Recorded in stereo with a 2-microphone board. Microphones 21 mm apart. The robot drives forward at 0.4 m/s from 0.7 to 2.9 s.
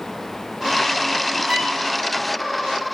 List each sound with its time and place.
1.5 s a violin: 60° right (ahead or behind), 3 m